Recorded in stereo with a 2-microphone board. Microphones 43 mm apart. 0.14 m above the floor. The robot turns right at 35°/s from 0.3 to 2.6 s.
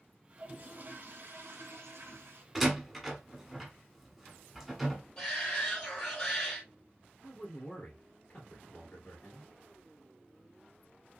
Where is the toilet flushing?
140° right, 2.0 m; by 2.5 s 65° right, 2.0 m.